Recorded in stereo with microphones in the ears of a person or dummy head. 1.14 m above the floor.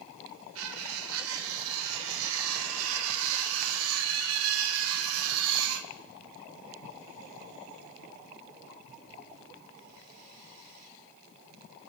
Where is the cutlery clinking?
80° right, 1.0 m.